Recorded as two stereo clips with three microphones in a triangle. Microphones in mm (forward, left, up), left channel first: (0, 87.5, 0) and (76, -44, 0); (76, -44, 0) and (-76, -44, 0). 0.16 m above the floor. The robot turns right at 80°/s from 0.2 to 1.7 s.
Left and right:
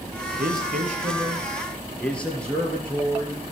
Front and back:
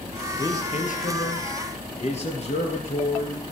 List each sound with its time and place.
0.4 s a man speaking: 70° right, 3 m; by 3.4 s 35° left, 3 m